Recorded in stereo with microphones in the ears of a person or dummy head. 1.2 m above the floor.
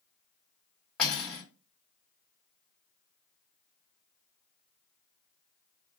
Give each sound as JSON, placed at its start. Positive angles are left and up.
{"t": 1.0, "sound": "cutlery clinking", "side_deg": 5, "distance_m": 0.7}